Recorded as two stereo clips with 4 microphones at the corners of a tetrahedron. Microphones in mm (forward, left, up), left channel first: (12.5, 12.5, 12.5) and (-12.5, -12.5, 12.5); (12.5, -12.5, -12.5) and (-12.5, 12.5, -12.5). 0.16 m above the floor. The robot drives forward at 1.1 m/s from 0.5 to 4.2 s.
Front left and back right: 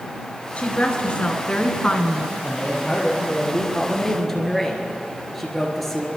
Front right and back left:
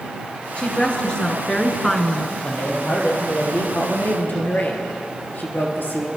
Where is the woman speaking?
10° left, 2.5 m; by 2.3 s 35° left, 1.3 m.